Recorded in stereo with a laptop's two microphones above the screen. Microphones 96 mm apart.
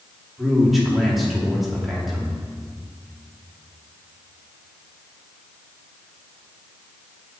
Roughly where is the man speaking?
Centre.